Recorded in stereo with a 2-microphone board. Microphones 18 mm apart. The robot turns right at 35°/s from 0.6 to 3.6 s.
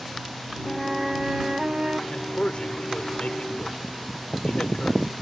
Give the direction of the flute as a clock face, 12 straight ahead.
6 o'clock.